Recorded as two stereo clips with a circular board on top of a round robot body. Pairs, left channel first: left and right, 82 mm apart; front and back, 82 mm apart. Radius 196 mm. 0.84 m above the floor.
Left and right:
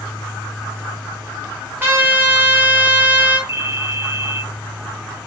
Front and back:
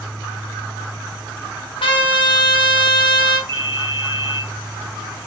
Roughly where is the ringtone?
Behind right.